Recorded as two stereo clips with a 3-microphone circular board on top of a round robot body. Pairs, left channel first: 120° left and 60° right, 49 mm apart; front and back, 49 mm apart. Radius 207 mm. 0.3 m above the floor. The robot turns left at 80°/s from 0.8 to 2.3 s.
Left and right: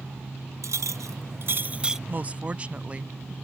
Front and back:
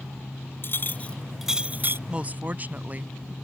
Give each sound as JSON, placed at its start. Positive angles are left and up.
{"t": 0.6, "sound": "a clink", "azimuth_deg": -45}
{"t": 2.1, "sound": "a woman speaking", "azimuth_deg": -110}